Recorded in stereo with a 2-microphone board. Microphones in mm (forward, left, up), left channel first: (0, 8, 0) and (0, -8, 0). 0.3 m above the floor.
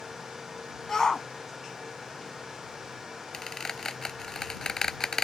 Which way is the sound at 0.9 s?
30° left (ahead or behind).